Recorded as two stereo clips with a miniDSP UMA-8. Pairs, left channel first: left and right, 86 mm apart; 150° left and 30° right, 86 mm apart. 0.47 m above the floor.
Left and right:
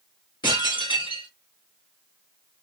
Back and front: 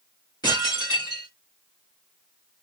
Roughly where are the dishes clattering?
Behind left.